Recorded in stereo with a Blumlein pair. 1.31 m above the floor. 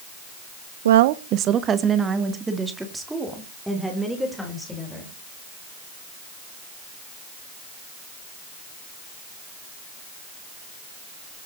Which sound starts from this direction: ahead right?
A woman speaking, at 0.8 s.